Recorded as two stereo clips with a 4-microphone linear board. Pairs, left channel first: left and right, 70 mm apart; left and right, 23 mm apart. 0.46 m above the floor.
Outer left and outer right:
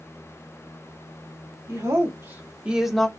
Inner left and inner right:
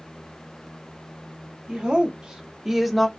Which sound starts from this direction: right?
A woman speaking, at 1.7 s.